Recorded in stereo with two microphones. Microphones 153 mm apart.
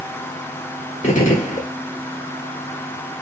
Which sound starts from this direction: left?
A gunshot, at 1.0 s.